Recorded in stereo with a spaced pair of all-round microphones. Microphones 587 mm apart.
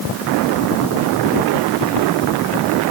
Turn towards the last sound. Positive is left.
No sound to turn to.